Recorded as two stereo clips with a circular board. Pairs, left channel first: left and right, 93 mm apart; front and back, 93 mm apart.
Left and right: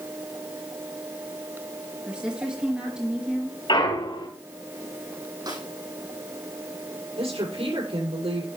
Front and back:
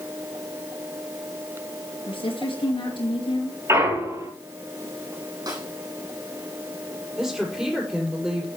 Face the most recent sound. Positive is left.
turn(degrees=-95)